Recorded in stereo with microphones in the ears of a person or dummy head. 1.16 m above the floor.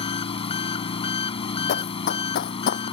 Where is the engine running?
35° left (ahead or behind).